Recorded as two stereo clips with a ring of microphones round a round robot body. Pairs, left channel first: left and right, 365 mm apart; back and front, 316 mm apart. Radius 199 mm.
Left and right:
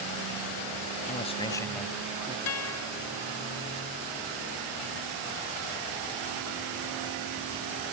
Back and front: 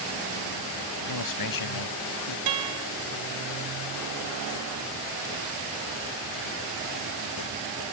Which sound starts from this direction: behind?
A man speaking, at 1.0 s.